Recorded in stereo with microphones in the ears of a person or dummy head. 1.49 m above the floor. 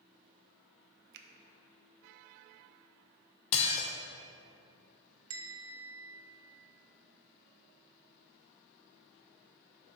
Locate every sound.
1.1 s a finger snap: 60° right (ahead or behind), 0.6 m
3.5 s dishes clattering: 35° left (ahead or behind), 0.7 m
5.3 s a bell: 75° right (ahead or behind), 0.9 m